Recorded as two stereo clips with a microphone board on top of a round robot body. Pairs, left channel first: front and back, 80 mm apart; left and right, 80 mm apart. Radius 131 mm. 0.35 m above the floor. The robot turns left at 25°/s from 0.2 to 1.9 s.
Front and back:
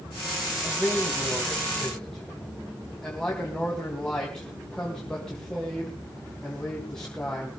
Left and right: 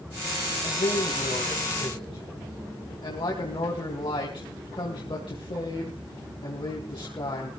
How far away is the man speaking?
About 3.5 m.